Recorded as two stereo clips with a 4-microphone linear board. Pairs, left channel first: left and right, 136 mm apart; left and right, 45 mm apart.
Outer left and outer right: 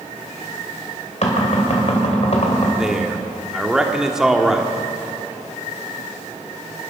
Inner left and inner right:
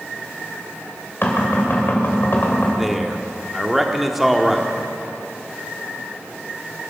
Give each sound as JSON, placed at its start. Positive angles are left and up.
{"t": 1.2, "sound": "knocking", "side_deg": 55, "distance_m": 3.0}
{"t": 2.8, "sound": "a man speaking", "side_deg": -5, "distance_m": 1.3}